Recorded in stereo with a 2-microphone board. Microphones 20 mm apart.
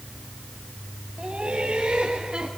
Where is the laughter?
65° right (ahead or behind), 2.5 m; by 2.5 s 50° right (ahead or behind), 3 m.